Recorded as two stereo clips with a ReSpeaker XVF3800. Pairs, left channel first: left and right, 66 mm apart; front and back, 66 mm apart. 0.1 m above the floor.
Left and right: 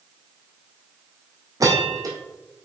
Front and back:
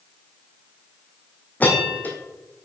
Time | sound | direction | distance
1.6 | a bell | 65° right | 2.5 m